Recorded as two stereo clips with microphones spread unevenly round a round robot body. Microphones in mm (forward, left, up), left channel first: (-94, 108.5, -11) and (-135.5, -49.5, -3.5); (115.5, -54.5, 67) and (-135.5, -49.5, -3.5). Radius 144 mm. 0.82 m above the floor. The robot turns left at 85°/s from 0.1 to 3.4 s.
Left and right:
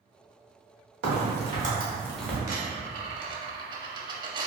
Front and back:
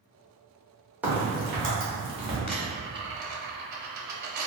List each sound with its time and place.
1.0 s a crack: 95° right, 1.4 m; by 2.4 s 150° left, 1.4 m
2.5 s a dropped coin: 55° right, 0.7 m; by 4.5 s 135° right, 0.7 m